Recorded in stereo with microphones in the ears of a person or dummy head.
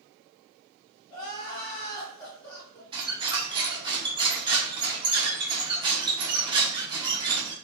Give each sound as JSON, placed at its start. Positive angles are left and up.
{"t": 1.1, "sound": "crying", "side_deg": 25, "distance_m": 1.2}
{"t": 2.9, "sound": "a squeak", "side_deg": -25, "distance_m": 0.5}